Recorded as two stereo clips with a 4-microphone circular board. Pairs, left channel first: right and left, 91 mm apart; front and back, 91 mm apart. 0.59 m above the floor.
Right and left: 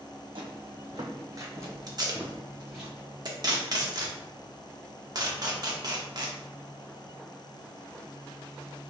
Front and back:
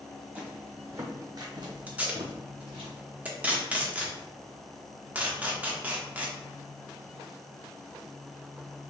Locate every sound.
0.3 s footsteps: 100° left, 1.4 m; by 2.9 s straight behind, 2.0 m
1.9 s tape being pulled: 110° left, 0.9 m